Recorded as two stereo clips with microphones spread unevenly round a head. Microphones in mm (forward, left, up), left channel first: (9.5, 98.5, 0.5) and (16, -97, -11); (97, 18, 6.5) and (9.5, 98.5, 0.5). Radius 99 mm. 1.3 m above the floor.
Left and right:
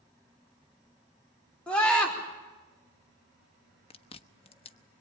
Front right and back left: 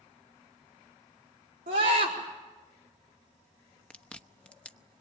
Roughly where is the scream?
Behind.